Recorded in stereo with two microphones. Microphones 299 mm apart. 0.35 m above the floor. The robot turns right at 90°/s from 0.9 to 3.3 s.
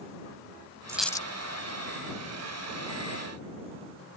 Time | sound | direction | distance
0.9 | a dropped coin | 10° right | ?